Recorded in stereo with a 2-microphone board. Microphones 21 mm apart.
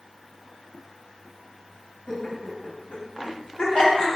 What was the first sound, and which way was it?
Laughter, 35° left (ahead or behind).